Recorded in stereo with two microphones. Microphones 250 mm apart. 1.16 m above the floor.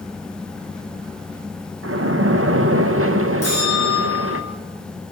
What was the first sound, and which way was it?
A splash, 55° right (ahead or behind).